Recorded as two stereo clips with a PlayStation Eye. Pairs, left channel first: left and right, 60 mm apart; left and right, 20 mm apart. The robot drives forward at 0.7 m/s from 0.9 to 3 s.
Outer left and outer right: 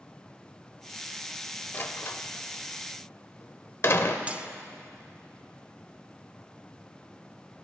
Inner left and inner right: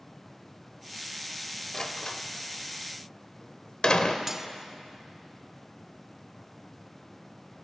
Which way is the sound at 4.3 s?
20° right (ahead or behind).